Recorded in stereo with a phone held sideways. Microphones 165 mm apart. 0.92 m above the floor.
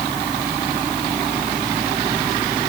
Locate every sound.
Only background noise.